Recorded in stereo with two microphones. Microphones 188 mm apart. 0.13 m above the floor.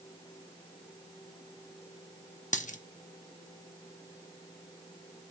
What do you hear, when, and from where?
2.5 s a dropped coin: 40° left (ahead or behind), 0.8 m